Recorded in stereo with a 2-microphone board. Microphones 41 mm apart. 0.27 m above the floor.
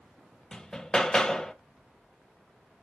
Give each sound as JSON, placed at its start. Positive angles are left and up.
{"t": 0.5, "sound": "hammering", "side_deg": 15, "distance_m": 0.6}